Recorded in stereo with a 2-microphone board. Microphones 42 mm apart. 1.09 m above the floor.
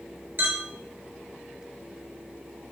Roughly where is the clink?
Right.